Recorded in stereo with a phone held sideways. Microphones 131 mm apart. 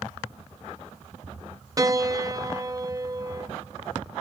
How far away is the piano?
About 0.5 m.